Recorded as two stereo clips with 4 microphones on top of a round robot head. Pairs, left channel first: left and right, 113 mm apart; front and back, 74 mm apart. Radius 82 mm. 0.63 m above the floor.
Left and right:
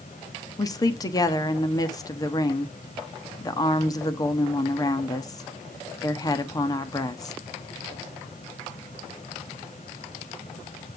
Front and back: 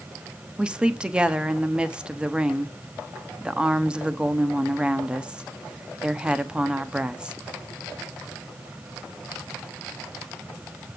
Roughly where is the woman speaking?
Left.